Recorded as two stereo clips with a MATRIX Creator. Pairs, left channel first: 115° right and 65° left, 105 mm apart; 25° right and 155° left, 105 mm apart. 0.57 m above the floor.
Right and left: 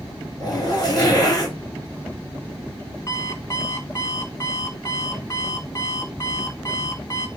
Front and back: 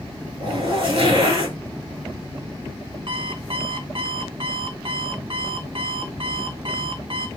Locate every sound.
0.4 s a zipper: 165° right, 4 m
3.1 s an alarm clock: 170° right, 2 m